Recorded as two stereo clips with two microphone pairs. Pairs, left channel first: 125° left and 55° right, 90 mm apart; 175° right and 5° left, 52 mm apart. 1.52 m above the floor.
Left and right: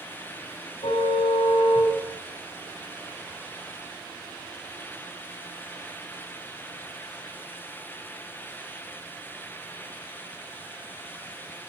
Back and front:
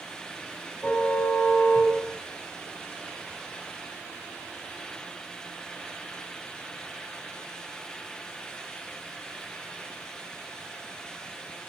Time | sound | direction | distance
0.8 | a car horn | 125° left | 6.5 m